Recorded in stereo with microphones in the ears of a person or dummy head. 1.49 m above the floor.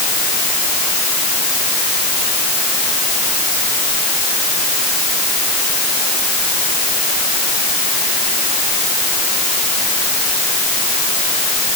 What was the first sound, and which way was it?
Only background noise.